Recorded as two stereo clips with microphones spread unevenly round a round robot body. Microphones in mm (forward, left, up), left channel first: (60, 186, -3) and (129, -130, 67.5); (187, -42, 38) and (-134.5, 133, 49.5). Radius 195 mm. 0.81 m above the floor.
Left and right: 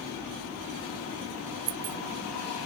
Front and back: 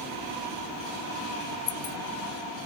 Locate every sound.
1.7 s keys jangling: 85° right